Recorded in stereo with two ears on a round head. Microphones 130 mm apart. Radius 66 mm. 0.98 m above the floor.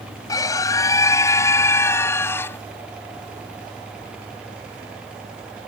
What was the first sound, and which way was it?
A scream, 25° left (ahead or behind).